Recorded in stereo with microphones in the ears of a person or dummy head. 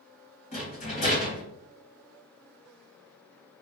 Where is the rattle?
35° left (ahead or behind), 1.8 m.